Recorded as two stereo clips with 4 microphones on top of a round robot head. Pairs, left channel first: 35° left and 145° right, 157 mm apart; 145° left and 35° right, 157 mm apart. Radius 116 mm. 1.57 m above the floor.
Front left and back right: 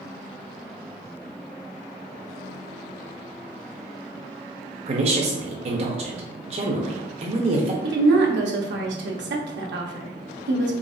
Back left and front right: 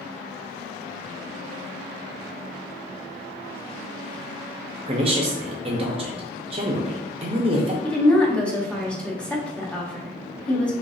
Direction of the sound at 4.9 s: 90° right.